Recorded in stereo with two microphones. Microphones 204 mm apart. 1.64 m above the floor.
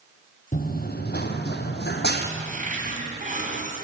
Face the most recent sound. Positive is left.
turn(degrees=-40)  # may be behind; listen again after turning